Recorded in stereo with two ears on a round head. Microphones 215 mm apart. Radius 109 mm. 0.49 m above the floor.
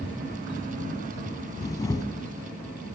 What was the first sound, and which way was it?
A camera shutter, 15° left (ahead or behind).